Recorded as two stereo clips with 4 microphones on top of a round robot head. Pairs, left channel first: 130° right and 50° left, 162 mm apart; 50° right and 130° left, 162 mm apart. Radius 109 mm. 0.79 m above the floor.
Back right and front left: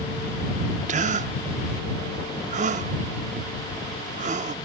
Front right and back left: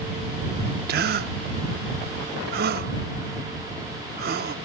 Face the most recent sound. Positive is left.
turn(degrees=100)